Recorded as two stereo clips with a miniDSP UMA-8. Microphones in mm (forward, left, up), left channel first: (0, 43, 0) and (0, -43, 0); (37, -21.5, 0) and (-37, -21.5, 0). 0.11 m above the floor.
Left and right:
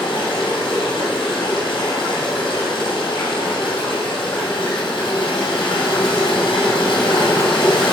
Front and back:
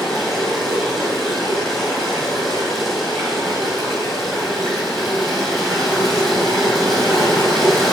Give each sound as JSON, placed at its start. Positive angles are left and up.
{"t": 0.0, "sound": "running water", "azimuth_deg": 90, "distance_m": 3.0}